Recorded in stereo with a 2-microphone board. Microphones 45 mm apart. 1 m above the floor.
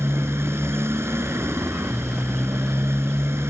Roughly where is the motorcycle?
Right.